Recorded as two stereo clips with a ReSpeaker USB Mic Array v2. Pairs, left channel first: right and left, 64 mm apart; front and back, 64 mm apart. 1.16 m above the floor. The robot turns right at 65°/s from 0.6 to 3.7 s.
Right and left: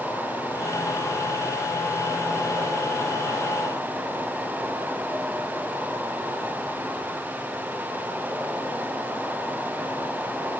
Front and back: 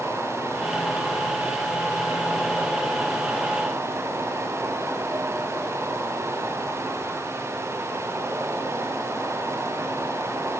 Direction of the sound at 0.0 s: 65° right.